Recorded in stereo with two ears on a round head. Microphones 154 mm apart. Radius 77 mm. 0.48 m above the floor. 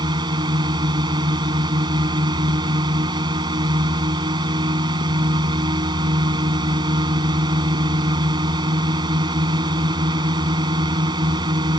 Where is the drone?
25° right (ahead or behind).